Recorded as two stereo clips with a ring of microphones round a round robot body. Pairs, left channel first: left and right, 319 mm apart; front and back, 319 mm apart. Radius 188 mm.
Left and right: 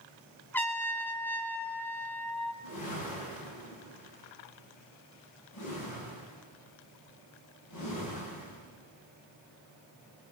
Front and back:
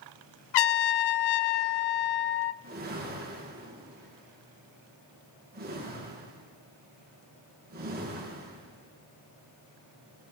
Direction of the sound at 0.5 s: 5° left.